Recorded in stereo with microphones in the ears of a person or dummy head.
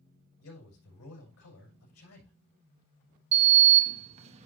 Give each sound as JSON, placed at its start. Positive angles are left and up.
{"t": 0.4, "sound": "a man speaking", "side_deg": 80, "distance_m": 5.0}
{"t": 3.3, "sound": "a sliding door", "side_deg": -35, "distance_m": 1.0}